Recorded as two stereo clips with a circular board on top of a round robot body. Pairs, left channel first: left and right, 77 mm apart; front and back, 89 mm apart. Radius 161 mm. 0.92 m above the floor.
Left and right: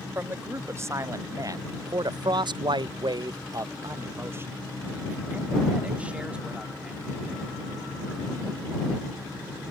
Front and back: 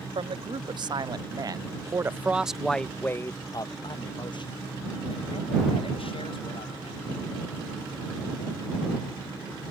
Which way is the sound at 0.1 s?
150° right.